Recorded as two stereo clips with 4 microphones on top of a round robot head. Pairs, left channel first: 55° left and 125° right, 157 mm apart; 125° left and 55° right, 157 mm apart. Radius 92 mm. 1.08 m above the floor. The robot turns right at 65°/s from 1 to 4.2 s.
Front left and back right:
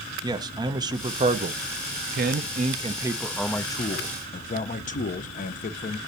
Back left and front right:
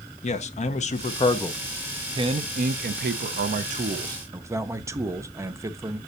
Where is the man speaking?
170° left, 0.7 m; by 6.0 s 20° left, 0.7 m.